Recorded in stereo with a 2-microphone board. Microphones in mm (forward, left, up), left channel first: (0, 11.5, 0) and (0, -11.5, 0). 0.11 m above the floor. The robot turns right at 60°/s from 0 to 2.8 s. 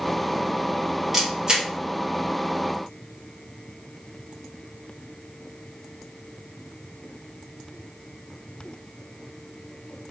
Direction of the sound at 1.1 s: 10° right (ahead or behind).